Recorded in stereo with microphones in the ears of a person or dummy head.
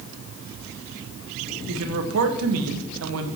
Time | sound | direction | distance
1.7 | a man speaking | 75° right (ahead or behind) | 1.4 m